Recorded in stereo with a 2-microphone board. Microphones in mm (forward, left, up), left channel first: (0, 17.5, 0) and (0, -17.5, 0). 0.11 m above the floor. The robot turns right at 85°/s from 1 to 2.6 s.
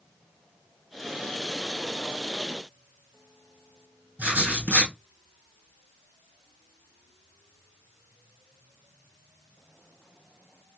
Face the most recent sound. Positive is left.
turn(degrees=-55)  # may be behind; listen again after turning